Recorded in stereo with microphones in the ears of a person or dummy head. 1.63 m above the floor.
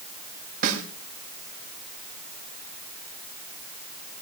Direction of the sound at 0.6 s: 45° right (ahead or behind).